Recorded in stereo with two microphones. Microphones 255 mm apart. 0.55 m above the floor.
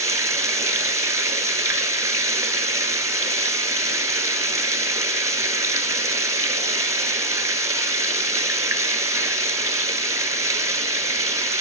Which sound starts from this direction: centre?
Running water, at 0.0 s.